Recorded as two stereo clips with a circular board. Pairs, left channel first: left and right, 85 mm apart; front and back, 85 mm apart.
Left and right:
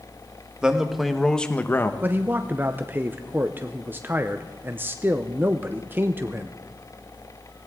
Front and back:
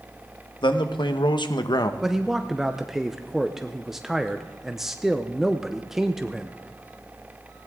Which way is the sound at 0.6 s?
10° right.